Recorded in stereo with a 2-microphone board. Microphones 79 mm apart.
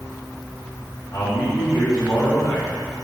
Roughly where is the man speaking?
Left.